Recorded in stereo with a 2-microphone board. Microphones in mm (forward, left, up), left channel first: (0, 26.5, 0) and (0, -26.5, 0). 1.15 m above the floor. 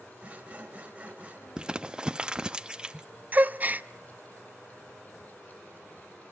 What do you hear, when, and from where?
0.2 s sawing: 30° right (ahead or behind), 3 m
1.6 s crumpling: 20° right (ahead or behind), 0.6 m
3.3 s a gasp: 35° right (ahead or behind), 0.6 m